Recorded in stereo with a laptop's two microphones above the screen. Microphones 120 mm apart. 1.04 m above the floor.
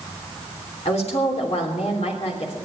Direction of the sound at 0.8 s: 65° left (ahead or behind).